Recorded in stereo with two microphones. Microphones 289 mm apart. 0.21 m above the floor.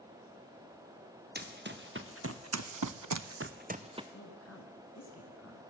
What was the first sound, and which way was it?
Running footsteps, 35° right (ahead or behind).